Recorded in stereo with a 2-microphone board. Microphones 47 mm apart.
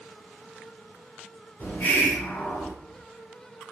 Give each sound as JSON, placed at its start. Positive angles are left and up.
{"t": 1.6, "sound": "a hiss", "side_deg": 65, "distance_m": 1.8}